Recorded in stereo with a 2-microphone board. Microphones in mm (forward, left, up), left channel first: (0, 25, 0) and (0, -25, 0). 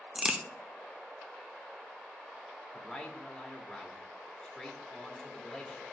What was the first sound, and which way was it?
A crack, 20° right (ahead or behind).